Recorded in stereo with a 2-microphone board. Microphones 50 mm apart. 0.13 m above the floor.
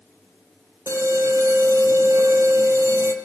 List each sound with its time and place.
0.9 s an alarm: 65° right (ahead or behind), 3.5 m